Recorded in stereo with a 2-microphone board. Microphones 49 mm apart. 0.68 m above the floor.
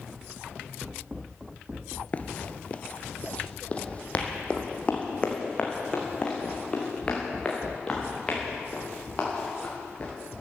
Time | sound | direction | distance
2.1 | running footsteps | 30° left (ahead or behind) | 0.7 m